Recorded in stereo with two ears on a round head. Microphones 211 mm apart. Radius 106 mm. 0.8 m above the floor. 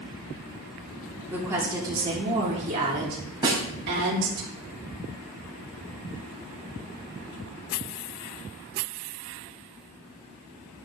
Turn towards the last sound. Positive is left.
turn(degrees=-20)  # may be behind; listen again after turning